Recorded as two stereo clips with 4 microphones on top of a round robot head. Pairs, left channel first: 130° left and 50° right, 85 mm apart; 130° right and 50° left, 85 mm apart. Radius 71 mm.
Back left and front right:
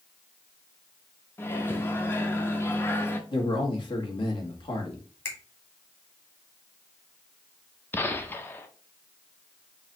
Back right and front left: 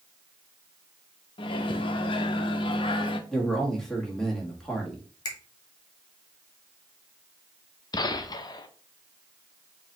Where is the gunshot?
165° right, 0.6 m.